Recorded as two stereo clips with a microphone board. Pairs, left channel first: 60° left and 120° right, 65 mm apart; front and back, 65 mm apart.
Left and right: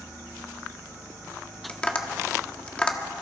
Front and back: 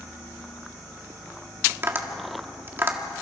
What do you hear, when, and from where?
1.7 s tapping: 130° left, 1.6 m